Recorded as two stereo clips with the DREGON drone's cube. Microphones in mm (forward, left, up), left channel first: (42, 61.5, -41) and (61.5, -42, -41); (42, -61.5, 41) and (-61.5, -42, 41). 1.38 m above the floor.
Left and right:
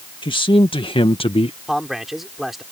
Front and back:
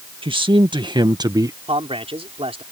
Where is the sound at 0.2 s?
140° left; by 1.6 s 115° left.